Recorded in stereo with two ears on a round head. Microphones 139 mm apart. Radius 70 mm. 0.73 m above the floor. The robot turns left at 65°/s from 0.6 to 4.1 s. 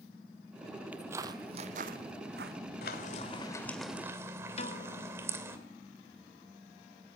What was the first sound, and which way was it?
Footsteps, 10° right (ahead or behind).